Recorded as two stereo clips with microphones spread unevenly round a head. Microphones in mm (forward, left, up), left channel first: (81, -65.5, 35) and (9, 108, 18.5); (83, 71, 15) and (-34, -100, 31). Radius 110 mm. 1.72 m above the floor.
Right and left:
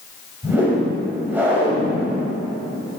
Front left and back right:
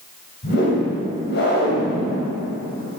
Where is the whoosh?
30° left, 2.5 m.